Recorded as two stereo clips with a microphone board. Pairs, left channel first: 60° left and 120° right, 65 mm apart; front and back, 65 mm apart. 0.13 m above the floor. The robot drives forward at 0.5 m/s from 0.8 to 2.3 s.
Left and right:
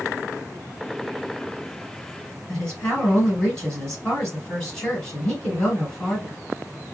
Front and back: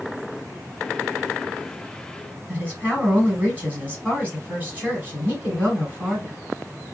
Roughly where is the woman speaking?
Behind left.